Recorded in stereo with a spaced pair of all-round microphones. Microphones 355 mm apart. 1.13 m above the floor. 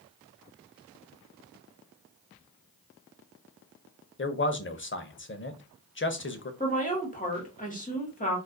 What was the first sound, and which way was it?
A man speaking, 35° left (ahead or behind).